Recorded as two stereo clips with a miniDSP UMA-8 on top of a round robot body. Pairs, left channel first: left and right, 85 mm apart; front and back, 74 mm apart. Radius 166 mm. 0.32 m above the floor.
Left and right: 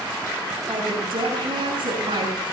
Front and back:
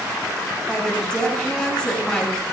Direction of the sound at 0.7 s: 80° right.